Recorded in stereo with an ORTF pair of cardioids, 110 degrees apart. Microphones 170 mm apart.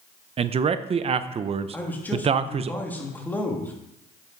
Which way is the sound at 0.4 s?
35° right.